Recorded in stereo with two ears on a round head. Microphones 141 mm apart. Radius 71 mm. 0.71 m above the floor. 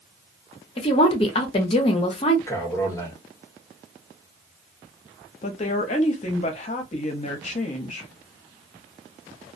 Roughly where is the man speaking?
Centre.